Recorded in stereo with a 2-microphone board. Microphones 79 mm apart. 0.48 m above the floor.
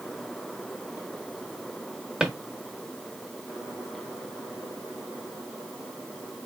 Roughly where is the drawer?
Centre.